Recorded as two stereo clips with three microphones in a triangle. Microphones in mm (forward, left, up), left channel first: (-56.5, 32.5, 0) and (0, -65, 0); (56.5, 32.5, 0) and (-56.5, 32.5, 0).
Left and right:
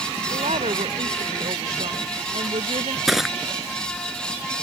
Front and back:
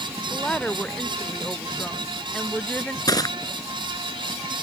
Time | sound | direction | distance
0.3 | a woman speaking | 80° right | ?
3.1 | crushing | 30° left | ?